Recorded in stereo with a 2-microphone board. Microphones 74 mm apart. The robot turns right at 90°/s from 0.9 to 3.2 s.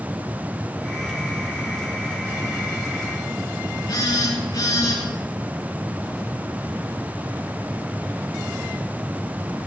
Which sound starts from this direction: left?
A phone buzzing, at 3.9 s.